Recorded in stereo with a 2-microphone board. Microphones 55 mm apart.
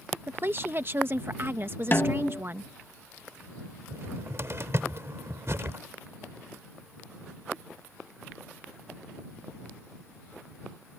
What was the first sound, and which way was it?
A woman speaking, 40° right (ahead or behind).